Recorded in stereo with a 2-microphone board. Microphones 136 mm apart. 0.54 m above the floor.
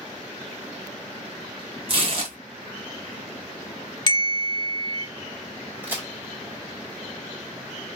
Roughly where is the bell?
Left.